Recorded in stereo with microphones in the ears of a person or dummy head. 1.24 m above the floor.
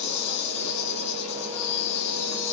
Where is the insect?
35° left (ahead or behind), 2 m.